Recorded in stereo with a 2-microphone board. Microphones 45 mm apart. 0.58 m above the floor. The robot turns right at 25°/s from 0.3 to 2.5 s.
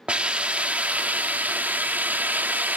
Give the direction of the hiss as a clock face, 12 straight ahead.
5 o'clock.